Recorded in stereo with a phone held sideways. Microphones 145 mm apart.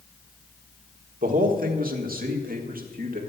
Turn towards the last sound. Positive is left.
turn(degrees=-75)  # may be behind; listen again after turning